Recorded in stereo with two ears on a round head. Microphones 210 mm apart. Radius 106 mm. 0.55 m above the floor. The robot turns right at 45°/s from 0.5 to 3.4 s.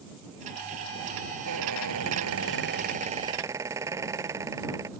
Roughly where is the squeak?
Right.